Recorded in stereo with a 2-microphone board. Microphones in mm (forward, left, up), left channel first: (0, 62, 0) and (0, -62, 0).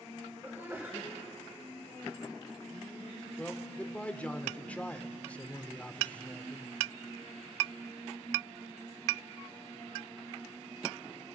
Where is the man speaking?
10° left (ahead or behind), 1.1 m.